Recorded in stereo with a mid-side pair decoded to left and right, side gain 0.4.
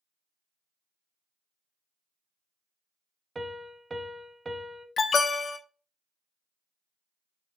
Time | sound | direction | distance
3.4 | a piano | 25° right | 0.6 m
5.0 | an alarm | 55° left | 0.6 m